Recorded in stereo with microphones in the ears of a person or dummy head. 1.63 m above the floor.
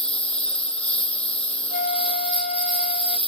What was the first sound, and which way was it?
A lawn mower, 5° left (ahead or behind).